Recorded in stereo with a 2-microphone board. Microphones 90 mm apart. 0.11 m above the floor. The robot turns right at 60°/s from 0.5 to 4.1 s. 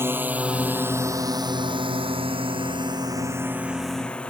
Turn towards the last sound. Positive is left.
turn(degrees=10)  # may be behind; listen again after turning